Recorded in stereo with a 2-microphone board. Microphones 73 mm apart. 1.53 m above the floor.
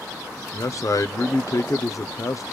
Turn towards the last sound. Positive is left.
turn(degrees=50)  # may be behind; listen again after turning